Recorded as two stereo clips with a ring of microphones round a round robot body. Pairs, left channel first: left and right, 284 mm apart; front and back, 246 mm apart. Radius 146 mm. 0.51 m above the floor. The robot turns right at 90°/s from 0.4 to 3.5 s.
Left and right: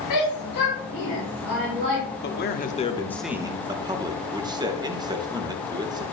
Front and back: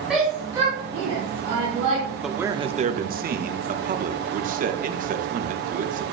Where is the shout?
90° left, 4.5 m; by 2.0 s 120° right, 4.5 m.